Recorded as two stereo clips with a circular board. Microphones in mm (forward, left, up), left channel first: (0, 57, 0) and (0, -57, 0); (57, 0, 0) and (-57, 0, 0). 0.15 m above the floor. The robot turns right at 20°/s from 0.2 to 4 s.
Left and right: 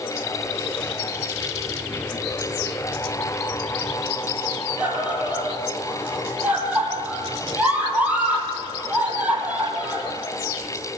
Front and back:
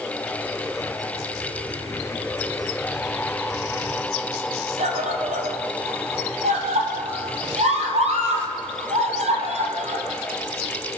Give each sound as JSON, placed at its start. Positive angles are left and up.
{"t": 4.8, "sound": "a scream", "azimuth_deg": -165, "distance_m": 4.5}